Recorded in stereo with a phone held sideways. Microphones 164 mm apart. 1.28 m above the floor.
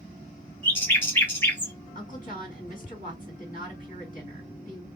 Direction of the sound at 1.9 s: 55° left (ahead or behind).